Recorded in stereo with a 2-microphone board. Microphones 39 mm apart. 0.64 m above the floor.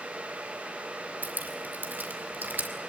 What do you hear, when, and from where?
1.2 s dripping: 55° right (ahead or behind), 2 m